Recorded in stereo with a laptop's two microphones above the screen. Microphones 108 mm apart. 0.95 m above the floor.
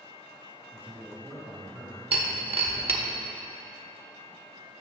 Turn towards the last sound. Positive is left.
turn(degrees=-60)  # may be behind; listen again after turning